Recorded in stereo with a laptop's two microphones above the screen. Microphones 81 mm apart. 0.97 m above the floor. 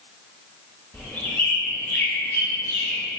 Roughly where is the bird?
Left.